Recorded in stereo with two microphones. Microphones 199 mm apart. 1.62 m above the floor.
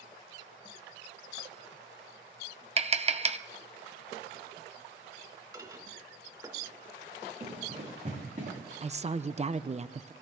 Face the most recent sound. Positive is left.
turn(degrees=-35)  # may be behind; listen again after turning